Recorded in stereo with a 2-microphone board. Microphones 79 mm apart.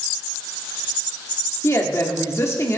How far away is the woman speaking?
About 2.0 m.